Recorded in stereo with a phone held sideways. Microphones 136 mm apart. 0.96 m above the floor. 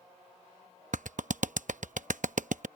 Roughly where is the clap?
Right.